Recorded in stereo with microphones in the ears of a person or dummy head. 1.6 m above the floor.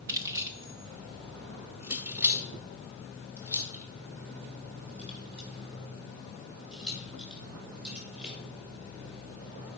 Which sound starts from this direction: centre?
Keys jangling, at 0.1 s.